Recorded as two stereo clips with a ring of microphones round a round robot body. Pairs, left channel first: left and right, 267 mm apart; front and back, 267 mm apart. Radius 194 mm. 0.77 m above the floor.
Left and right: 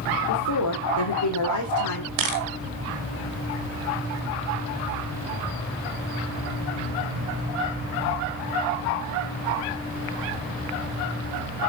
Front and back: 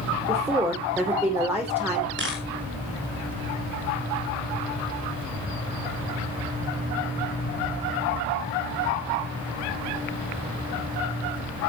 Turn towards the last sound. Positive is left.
turn(degrees=-115)